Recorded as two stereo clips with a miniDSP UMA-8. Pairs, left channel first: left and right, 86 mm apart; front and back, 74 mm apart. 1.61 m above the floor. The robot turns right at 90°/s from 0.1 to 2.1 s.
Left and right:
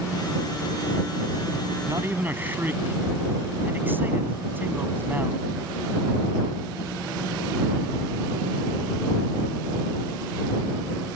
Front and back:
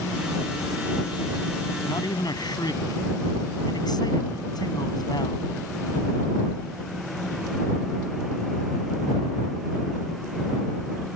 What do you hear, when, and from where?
1.8 s a man speaking: 45° right; by 5.5 s 25° right